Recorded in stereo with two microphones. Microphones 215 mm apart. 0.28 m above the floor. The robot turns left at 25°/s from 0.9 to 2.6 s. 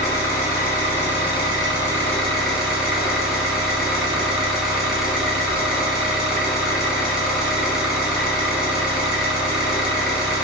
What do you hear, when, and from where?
0.0 s an engine running: 40° left, 1.3 m; by 10.4 s straight ahead, 1.3 m